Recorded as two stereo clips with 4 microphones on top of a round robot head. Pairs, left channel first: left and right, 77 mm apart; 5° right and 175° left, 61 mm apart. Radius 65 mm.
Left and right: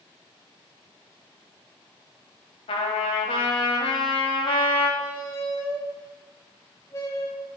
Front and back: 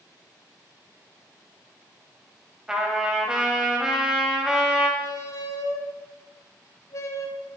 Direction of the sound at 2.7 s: 95° left.